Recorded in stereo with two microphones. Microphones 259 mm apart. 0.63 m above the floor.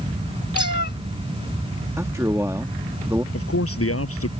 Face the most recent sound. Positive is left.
turn(degrees=60)  # may be behind; listen again after turning